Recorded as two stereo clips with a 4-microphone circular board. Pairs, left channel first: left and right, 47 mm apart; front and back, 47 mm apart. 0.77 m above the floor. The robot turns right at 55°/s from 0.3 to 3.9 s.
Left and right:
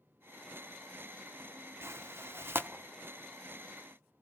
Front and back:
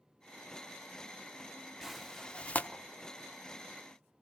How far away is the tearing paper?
About 1.0 m.